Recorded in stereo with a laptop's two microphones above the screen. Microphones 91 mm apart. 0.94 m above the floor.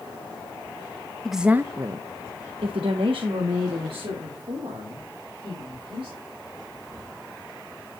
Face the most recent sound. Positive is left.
turn(degrees=-70)  # may be behind; listen again after turning